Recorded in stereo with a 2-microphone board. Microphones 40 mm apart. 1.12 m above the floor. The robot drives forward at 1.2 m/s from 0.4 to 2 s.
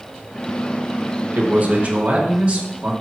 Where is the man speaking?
50° right (ahead or behind), 1.2 m; by 2.9 s 30° right (ahead or behind), 1.7 m.